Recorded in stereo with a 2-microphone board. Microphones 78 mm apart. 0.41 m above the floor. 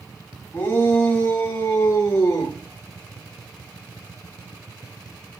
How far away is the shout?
About 2.5 m.